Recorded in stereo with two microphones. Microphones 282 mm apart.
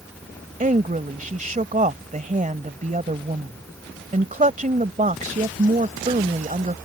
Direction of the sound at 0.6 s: 30° right (ahead or behind).